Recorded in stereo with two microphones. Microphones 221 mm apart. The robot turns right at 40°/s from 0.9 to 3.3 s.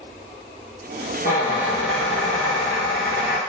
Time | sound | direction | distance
1.2 | a squeak | 45° left | 1.0 m